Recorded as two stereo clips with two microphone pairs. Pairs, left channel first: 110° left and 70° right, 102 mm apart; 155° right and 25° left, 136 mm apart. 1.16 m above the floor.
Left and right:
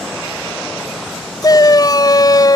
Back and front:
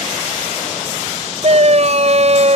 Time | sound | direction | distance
1.4 | a shout | 60° left | ?